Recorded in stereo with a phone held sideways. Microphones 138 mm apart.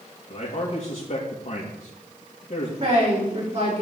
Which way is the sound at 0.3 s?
60° left (ahead or behind).